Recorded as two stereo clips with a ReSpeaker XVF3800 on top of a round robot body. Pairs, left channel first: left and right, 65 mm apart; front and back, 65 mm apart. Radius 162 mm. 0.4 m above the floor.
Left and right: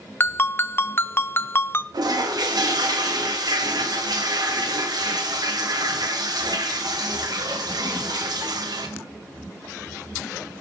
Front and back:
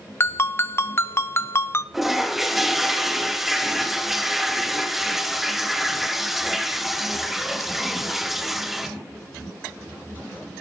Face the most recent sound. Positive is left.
turn(degrees=-95)